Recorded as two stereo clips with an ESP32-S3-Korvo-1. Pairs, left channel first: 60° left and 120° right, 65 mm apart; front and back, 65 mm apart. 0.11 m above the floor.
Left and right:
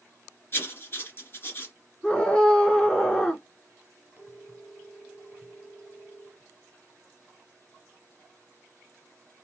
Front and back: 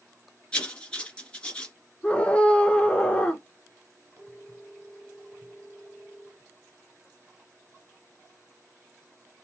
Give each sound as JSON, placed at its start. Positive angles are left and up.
{"t": 0.5, "sound": "writing", "azimuth_deg": 60, "distance_m": 1.7}
{"t": 2.0, "sound": "a scream", "azimuth_deg": 15, "distance_m": 1.1}
{"t": 4.2, "sound": "a phone ringing", "azimuth_deg": -170, "distance_m": 1.9}